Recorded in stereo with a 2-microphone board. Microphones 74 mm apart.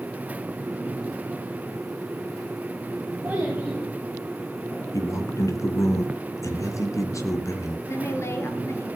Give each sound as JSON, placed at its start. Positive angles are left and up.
{"t": 3.2, "sound": "a child speaking", "side_deg": -25, "distance_m": 6.0}
{"t": 4.9, "sound": "a man speaking", "side_deg": 45, "distance_m": 2.5}
{"t": 7.9, "sound": "a woman speaking", "side_deg": 35, "distance_m": 3.0}